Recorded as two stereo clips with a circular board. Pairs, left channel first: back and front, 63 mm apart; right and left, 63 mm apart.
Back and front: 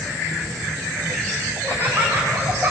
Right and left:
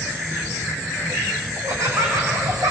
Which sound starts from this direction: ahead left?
Laughter, at 1.6 s.